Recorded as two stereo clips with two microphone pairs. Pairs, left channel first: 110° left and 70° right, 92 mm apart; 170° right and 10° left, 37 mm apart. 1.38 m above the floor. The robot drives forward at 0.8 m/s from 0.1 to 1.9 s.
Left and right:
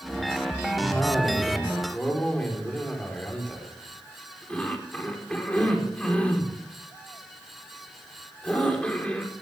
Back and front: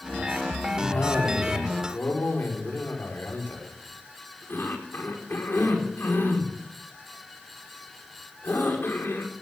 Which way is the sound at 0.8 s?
165° right.